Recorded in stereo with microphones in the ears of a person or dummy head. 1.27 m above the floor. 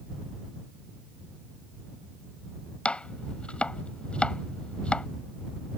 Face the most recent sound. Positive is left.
turn(degrees=5)  # may be behind; listen again after turning